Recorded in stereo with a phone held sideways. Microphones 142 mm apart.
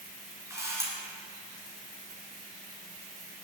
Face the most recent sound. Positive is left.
turn(degrees=-20)  # may be behind; listen again after turning